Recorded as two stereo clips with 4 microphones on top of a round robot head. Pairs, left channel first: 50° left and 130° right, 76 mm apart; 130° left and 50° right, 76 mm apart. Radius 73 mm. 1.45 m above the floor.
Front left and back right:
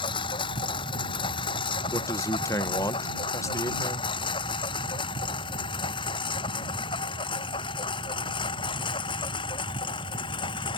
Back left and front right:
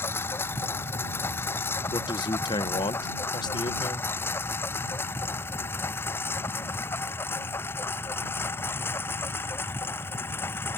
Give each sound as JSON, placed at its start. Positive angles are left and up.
{"t": 0.0, "sound": "a lawn mower", "azimuth_deg": 65}
{"t": 1.9, "sound": "a man speaking", "azimuth_deg": 100}